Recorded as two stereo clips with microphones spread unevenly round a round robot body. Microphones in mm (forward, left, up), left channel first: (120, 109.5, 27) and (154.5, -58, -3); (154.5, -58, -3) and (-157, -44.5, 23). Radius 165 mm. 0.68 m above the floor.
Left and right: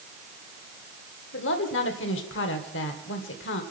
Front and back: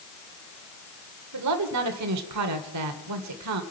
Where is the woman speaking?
130° left, 1.9 m.